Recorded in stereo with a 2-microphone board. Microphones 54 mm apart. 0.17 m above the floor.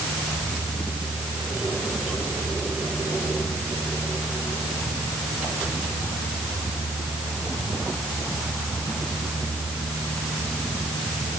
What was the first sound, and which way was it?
Only background noise.